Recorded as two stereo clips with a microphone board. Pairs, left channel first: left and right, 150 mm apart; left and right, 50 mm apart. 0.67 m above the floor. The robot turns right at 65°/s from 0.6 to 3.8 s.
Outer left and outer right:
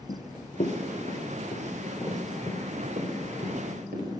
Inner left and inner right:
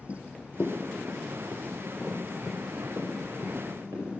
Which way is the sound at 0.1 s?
45° left (ahead or behind).